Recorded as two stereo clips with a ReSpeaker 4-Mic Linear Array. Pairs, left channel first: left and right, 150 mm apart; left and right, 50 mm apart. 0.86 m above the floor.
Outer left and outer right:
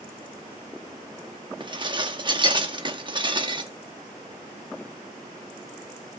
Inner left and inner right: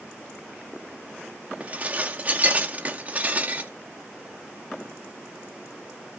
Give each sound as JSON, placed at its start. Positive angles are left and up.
{"t": 1.6, "sound": "dishes clattering", "side_deg": -30, "distance_m": 0.9}